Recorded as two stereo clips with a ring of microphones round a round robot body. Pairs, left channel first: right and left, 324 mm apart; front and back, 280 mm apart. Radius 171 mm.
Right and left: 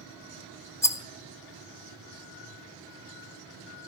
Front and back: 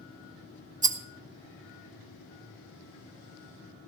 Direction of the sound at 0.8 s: 160° right.